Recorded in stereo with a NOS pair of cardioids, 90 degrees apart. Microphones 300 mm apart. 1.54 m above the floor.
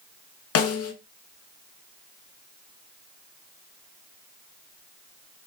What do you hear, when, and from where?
0.6 s a snare drum: 55° left, 0.8 m